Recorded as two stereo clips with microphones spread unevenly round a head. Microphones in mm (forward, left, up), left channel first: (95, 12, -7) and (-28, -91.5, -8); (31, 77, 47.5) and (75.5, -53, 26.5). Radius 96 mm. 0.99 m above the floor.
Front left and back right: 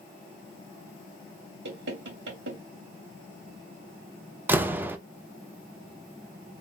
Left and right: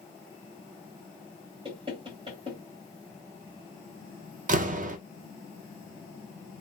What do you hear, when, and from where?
1.6 s knocking: 135° right, 2 m
4.5 s a door slam: 65° right, 0.7 m